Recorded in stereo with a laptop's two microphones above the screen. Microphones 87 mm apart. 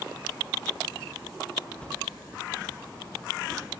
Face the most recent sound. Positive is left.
turn(degrees=15)  # may be behind; listen again after turning